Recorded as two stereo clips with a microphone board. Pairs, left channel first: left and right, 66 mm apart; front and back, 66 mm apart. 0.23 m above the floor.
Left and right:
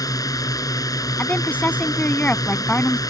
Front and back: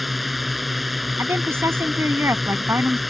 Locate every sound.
0.0 s a drone: 90° left
1.2 s a woman speaking: 150° left